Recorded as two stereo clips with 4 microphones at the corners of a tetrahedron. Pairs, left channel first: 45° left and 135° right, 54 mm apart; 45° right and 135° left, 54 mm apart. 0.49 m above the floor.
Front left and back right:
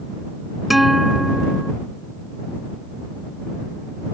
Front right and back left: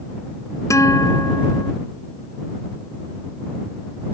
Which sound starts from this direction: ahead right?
A guitar, at 0.7 s.